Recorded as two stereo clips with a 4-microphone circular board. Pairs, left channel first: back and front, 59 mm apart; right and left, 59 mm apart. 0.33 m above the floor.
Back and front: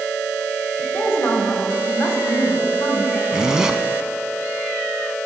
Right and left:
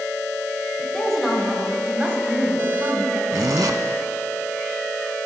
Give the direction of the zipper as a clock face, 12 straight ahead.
9 o'clock.